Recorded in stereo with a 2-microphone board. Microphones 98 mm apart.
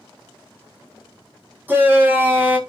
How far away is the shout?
About 1.9 m.